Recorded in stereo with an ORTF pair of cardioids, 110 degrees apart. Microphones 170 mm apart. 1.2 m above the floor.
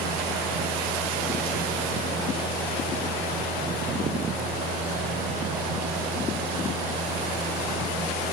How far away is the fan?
About 1.0 m.